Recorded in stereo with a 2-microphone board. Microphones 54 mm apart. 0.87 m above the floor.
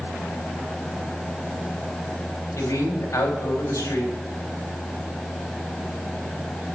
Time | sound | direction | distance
2.6 | a man speaking | 70° left (ahead or behind) | 4.5 m